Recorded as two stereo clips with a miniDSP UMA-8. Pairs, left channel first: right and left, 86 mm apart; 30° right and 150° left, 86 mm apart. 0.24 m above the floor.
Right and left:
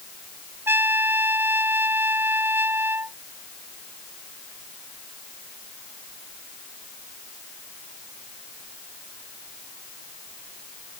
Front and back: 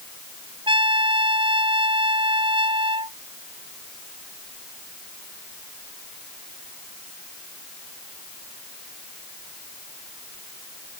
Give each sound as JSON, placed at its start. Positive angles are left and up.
{"t": 0.7, "sound": "a trumpet", "azimuth_deg": 155}